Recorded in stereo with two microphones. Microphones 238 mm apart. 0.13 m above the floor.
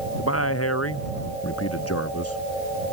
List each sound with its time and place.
0.2 s a man speaking: 80° left